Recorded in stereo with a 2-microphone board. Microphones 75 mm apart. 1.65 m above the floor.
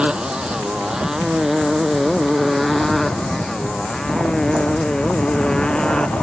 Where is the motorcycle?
15° right (ahead or behind); by 6.2 s 10° left (ahead or behind).